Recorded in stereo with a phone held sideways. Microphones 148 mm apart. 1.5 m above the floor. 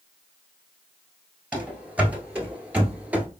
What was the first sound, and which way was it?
Running footsteps, 5° right (ahead or behind).